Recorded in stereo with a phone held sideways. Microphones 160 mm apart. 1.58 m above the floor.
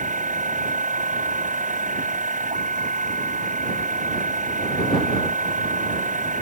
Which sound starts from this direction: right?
A machine running, at 0.0 s.